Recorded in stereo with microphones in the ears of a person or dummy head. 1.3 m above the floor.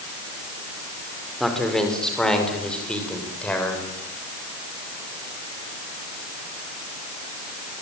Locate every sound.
1.4 s a man speaking: 5° left (ahead or behind), 4.5 m; by 3.9 s 10° left (ahead or behind), 6.5 m